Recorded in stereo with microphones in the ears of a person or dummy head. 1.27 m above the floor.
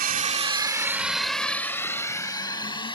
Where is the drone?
45° right (ahead or behind); by 3.0 s 25° left (ahead or behind).